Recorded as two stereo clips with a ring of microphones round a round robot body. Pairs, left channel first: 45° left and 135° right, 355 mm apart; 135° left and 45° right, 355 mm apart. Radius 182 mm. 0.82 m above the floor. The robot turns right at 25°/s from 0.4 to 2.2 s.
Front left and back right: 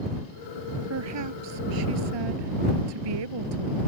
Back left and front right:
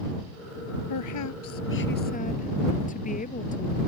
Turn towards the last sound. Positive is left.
turn(degrees=-155)